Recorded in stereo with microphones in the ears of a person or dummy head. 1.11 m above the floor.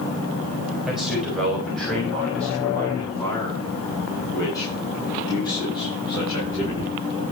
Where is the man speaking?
Centre (ahead or behind), 6 m; by 6.9 s 30° left (ahead or behind), 11 m.